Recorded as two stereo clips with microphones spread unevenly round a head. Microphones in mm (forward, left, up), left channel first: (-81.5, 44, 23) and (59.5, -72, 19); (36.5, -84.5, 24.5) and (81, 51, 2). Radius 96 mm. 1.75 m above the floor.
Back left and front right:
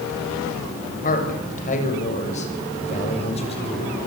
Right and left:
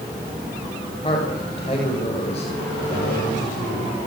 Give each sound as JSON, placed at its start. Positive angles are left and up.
{"t": 1.0, "sound": "a man speaking", "azimuth_deg": -175, "distance_m": 7.5}